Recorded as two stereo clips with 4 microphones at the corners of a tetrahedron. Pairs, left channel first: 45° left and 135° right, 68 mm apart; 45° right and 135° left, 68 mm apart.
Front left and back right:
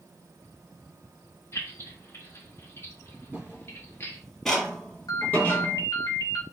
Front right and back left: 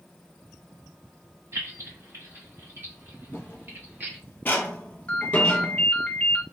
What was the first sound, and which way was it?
Keys jangling, 95° left.